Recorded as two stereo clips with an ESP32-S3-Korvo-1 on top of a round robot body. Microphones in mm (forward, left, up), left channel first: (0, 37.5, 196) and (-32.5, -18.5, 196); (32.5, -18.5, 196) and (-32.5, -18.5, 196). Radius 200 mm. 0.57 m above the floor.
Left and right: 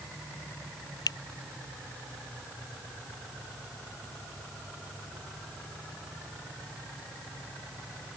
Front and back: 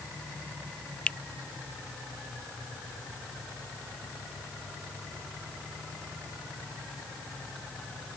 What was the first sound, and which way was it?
A finger snap, 75° left.